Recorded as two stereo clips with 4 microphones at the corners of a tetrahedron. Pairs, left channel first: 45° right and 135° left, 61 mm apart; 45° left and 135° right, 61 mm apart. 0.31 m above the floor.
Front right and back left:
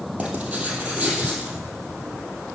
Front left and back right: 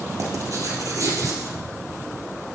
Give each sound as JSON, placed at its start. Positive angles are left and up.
{"t": 0.2, "sound": "writing", "azimuth_deg": -155, "distance_m": 2.5}